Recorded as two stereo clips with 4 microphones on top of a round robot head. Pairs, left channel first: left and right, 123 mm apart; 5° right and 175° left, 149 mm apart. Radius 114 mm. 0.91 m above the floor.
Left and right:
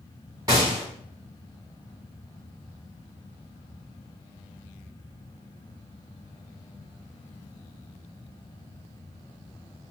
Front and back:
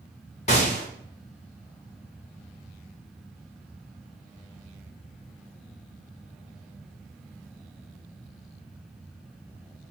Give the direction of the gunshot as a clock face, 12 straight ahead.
1 o'clock.